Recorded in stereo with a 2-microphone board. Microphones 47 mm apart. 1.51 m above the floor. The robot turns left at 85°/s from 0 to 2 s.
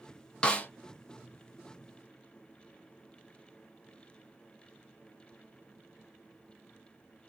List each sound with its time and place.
0.4 s a snare drum: 20° left (ahead or behind), 0.7 m; by 0.7 s 40° left (ahead or behind), 0.7 m